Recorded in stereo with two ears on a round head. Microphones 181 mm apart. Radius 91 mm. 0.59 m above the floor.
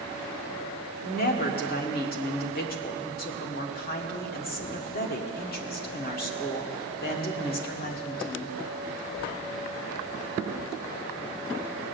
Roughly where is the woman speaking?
Left.